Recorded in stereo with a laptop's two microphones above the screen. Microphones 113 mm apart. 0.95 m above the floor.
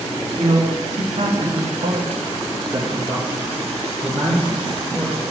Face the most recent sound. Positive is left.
turn(degrees=5)  # may be behind; listen again after turning